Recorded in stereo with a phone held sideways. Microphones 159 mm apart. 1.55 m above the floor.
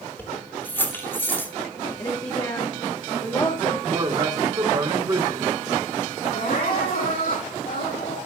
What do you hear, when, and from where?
0.2 s keys jangling: 15° left (ahead or behind), 3 m
2.0 s a woman speaking: 30° left (ahead or behind), 2.5 m
3.9 s a man speaking: 30° right (ahead or behind), 4.5 m
6.3 s crying: 75° left (ahead or behind), 8.5 m